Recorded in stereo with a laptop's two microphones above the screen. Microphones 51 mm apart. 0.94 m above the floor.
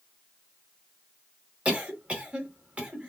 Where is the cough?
25° right (ahead or behind), 1.5 m.